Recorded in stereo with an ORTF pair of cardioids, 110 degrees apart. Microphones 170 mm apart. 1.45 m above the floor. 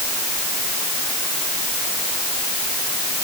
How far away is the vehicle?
I don't hear a vehicle.